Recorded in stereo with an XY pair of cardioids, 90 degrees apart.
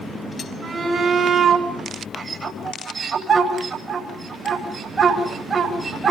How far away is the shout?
About 10 m.